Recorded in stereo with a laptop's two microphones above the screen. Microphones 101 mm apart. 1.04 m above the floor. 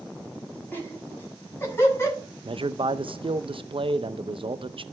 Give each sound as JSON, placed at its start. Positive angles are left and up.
{"t": 0.7, "sound": "laughter", "side_deg": 20, "distance_m": 7.0}
{"t": 2.5, "sound": "a man speaking", "side_deg": -60, "distance_m": 0.6}